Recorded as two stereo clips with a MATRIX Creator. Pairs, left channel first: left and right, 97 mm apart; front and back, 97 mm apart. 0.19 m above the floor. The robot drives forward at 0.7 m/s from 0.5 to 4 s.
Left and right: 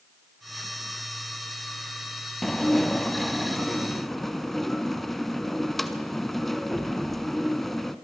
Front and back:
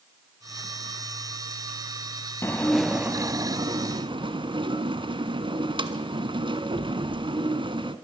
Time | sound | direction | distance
2.4 | dishes clattering | 5° left | 0.7 m